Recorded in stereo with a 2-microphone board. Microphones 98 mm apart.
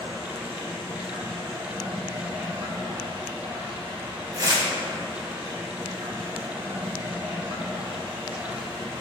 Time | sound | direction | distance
0.0 | running water | 80° right | 2.5 m
4.3 | tearing paper | 40° right (ahead or behind) | 1.4 m